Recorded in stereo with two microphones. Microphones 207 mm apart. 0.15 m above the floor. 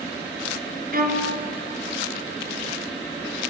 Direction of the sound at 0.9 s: 45° right (ahead or behind).